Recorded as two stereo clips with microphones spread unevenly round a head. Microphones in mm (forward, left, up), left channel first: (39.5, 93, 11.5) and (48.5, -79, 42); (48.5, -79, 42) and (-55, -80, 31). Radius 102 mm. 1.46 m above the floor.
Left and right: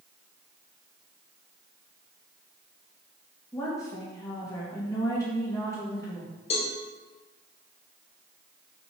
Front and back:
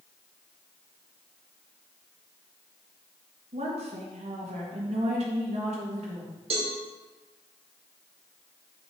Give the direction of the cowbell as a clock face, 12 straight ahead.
7 o'clock.